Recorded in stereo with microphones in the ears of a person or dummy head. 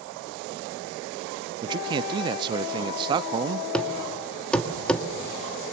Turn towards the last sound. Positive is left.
turn(degrees=10)  # may be behind; listen again after turning